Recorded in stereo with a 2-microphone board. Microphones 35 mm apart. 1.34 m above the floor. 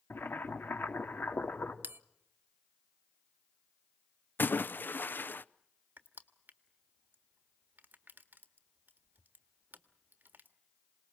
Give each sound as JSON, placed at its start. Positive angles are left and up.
{"t": 0.1, "sound": "boiling", "side_deg": 80, "distance_m": 2.5}
{"t": 1.8, "sound": "a bell", "side_deg": -70, "distance_m": 0.8}
{"t": 4.4, "sound": "a splash", "side_deg": 65, "distance_m": 0.6}
{"t": 6.0, "sound": "crushing", "side_deg": -60, "distance_m": 1.6}